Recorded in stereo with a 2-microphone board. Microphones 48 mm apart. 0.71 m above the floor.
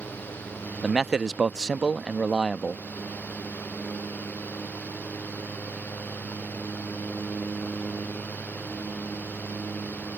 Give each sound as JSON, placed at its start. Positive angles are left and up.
{"t": 0.8, "sound": "a man speaking", "side_deg": -15}